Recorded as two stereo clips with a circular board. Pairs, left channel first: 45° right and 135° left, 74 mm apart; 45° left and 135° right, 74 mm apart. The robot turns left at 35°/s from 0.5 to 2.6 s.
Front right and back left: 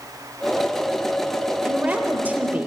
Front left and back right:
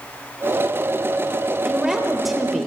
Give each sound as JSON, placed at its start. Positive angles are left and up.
{"t": 1.6, "sound": "a woman speaking", "azimuth_deg": 160, "distance_m": 0.9}